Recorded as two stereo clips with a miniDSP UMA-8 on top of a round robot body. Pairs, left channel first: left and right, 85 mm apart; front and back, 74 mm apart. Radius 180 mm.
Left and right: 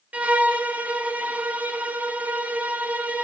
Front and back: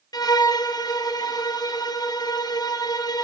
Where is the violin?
20° right, 0.6 m.